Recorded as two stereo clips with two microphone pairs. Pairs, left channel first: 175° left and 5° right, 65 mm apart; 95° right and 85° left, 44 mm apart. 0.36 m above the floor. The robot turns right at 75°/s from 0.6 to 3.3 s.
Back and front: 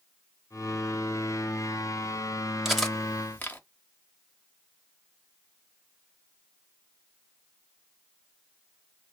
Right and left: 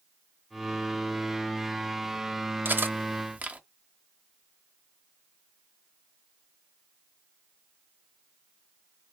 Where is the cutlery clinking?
70° left, 0.7 m; by 3.6 s 120° left, 0.7 m.